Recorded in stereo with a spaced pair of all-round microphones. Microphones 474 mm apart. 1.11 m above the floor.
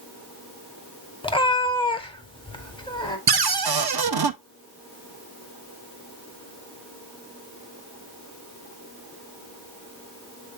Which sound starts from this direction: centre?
A cat meowing, at 1.2 s.